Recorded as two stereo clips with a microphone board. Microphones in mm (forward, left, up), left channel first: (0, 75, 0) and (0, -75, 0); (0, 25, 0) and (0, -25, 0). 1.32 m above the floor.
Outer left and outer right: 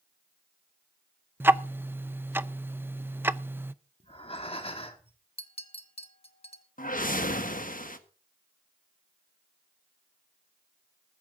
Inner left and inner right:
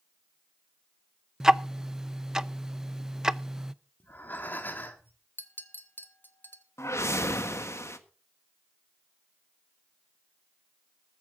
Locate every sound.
1.4 s ticking: 15° right (ahead or behind), 0.5 m
4.0 s breathing: 40° left (ahead or behind), 2 m
5.4 s a clink: 40° left (ahead or behind), 1.4 m
6.8 s a whoosh: 70° left (ahead or behind), 1.4 m